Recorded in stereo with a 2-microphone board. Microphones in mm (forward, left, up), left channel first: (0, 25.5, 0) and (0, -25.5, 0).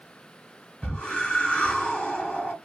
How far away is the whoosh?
About 1.8 m.